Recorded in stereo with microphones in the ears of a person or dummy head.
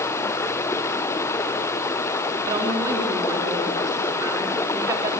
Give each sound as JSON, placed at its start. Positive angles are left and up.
{"t": 0.0, "sound": "running water", "side_deg": 15, "distance_m": 0.9}
{"t": 2.5, "sound": "a woman speaking", "side_deg": -20, "distance_m": 3.0}